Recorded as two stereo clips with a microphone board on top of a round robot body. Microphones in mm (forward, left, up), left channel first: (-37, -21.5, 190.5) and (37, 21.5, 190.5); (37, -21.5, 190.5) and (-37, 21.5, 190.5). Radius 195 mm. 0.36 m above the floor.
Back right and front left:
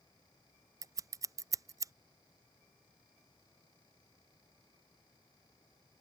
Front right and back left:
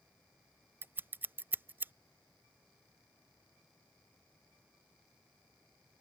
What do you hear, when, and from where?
0.8 s scissors: 80° left